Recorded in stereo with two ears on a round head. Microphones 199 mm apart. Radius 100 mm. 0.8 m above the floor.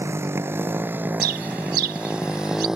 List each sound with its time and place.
0.0 s a motorcycle: 10° right (ahead or behind); by 2.8 s centre (ahead or behind)
1.2 s a bird: 45° right (ahead or behind)